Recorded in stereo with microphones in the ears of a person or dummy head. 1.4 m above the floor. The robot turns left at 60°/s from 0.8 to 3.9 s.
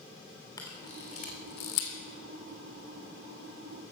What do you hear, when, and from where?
0.6 s a camera shutter: 20° left (ahead or behind), 2.5 m; by 2.0 s 75° left (ahead or behind), 2.5 m